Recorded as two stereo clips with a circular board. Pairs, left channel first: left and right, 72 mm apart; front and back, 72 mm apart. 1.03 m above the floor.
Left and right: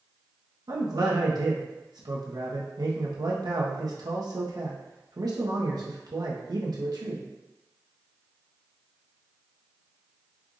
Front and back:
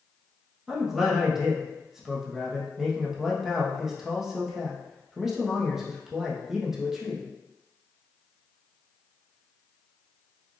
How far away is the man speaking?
About 0.9 m.